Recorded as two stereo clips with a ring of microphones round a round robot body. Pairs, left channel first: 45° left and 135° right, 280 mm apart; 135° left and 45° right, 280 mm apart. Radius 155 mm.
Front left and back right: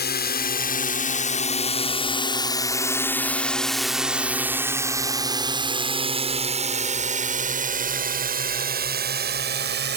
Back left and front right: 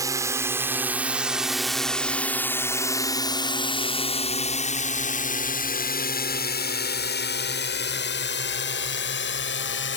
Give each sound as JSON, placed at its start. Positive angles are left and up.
{"t": 0.0, "sound": "a drone", "azimuth_deg": 25}